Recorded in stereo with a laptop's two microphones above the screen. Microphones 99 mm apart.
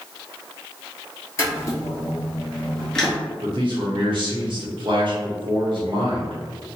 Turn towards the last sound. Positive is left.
turn(degrees=-60)  # may be behind; listen again after turning